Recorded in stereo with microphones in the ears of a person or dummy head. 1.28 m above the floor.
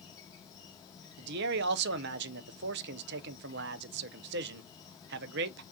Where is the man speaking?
55° right (ahead or behind), 0.7 m.